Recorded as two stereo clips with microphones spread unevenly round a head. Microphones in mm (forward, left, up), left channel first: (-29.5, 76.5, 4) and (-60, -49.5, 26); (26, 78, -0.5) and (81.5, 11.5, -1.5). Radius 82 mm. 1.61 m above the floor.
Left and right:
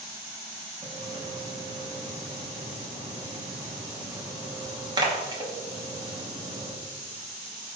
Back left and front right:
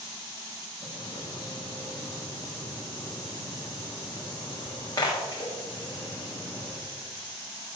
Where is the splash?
160° right, 3 m.